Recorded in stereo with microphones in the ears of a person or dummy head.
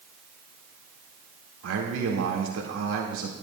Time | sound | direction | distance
1.6 | a man speaking | 80° right | 1.8 m